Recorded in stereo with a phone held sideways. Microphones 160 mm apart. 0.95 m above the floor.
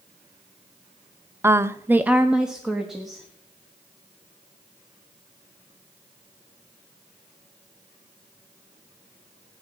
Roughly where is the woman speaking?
Centre.